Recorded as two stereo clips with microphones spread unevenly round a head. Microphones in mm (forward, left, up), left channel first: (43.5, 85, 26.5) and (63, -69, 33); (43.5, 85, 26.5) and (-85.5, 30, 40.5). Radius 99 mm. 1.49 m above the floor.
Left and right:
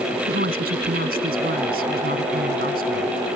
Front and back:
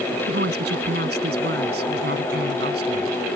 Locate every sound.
0.3 s a woman speaking: 130° right